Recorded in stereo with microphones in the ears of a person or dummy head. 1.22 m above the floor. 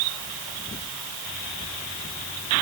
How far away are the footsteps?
I don't hear footsteps.